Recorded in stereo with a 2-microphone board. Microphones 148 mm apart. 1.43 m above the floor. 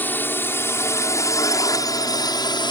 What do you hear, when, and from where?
0.0 s a drone: 15° left (ahead or behind); by 2.7 s 30° left (ahead or behind)